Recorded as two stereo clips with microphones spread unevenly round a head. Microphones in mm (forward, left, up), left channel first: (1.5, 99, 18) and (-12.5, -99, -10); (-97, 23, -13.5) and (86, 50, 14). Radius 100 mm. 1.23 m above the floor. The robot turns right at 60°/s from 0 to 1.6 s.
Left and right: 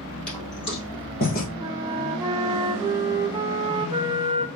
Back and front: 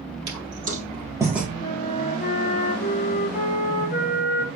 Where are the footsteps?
5° left, 2.5 m; by 1.5 s 90° left, 1.8 m.